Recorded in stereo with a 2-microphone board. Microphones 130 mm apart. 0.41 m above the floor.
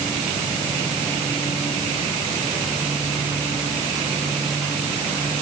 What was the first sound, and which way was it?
Only background noise.